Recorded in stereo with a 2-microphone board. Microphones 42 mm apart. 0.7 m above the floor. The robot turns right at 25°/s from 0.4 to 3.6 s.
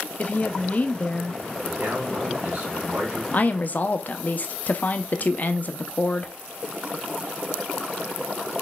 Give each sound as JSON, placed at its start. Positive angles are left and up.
{"t": 0.2, "sound": "a woman speaking", "side_deg": 35, "distance_m": 0.6}
{"t": 1.6, "sound": "a man speaking", "azimuth_deg": -85, "distance_m": 2.5}
{"t": 3.3, "sound": "a woman speaking", "side_deg": 40, "distance_m": 0.6}